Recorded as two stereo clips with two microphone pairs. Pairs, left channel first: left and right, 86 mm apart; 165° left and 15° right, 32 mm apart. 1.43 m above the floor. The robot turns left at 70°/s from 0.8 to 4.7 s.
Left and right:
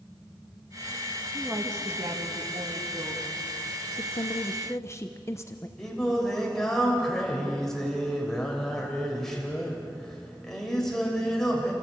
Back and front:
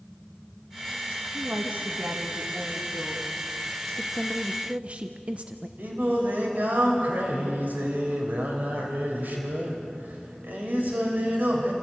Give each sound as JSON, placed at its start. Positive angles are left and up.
{"t": 1.3, "sound": "a woman speaking", "azimuth_deg": -15, "distance_m": 1.7}
{"t": 4.0, "sound": "a woman speaking", "azimuth_deg": 85, "distance_m": 0.8}
{"t": 5.8, "sound": "singing", "azimuth_deg": 5, "distance_m": 3.5}